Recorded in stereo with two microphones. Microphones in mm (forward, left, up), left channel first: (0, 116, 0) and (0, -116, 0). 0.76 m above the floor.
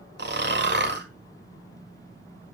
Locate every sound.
0.2 s snoring: 50° right (ahead or behind), 1.4 m